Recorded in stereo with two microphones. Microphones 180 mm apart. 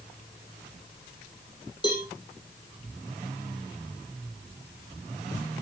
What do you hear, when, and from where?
1.8 s a cowbell: 20° left (ahead or behind), 5.5 m